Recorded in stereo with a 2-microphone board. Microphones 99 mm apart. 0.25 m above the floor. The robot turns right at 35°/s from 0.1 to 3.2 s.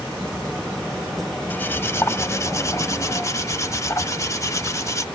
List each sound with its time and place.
1.5 s cutlery clinking: 40° left, 0.8 m; by 5.0 s 100° left, 0.8 m